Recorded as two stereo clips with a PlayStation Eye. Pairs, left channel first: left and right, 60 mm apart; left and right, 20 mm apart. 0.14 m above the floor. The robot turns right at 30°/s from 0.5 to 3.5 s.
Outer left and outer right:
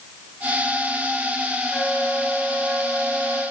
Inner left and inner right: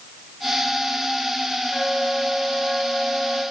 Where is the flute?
165° left, 2.5 m; by 3.4 s 145° right, 2.5 m.